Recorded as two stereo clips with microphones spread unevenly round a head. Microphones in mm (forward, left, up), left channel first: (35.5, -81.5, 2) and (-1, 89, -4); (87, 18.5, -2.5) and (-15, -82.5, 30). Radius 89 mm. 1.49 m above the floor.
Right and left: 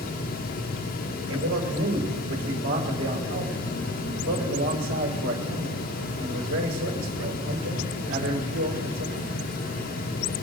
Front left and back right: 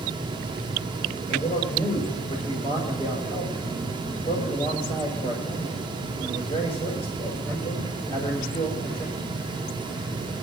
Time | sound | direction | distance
1.3 | a man speaking | 105° left | 6 m